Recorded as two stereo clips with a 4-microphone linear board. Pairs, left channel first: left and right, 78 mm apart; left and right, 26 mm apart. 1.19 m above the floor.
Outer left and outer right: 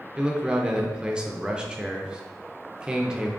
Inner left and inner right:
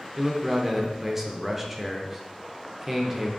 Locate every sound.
0.2 s a man speaking: 10° right (ahead or behind), 0.5 m